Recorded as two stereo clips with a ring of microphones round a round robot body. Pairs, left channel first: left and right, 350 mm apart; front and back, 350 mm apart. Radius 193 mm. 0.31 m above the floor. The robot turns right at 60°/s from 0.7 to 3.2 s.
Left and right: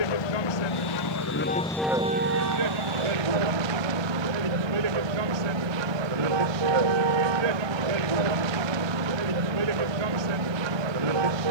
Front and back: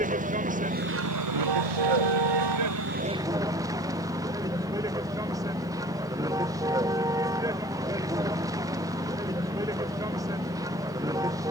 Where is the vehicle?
110° left; by 11.5 s 100° right.